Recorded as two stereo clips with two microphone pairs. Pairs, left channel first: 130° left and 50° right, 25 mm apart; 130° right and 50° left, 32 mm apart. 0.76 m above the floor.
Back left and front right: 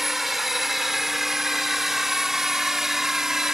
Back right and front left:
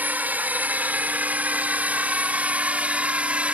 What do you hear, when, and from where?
0.0 s a drone: 30° left; by 3.5 s 15° left